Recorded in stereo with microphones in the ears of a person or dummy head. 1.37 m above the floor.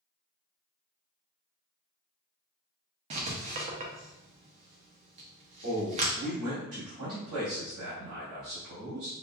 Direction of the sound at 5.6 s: 65° right (ahead or behind).